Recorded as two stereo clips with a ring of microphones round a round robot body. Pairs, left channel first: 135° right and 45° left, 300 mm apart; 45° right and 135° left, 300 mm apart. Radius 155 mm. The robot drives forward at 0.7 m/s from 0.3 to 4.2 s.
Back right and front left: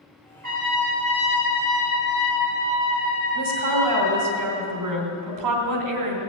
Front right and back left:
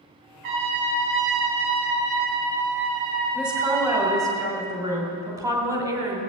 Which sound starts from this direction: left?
A trumpet, at 0.4 s.